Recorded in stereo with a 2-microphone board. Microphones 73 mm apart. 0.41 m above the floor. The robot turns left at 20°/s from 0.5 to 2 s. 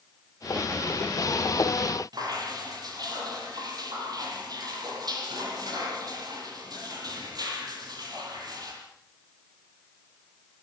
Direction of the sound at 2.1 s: 60° right (ahead or behind).